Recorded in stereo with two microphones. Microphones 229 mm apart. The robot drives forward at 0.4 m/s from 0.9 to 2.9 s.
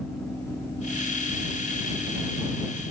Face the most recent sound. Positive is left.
No sound to turn to.